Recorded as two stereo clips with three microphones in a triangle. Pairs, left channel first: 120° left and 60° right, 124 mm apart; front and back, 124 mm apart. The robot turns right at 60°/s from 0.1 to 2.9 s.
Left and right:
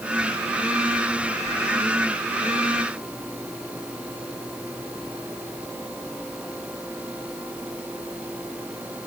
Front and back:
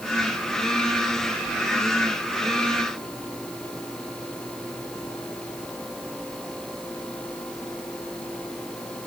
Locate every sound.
Only background noise.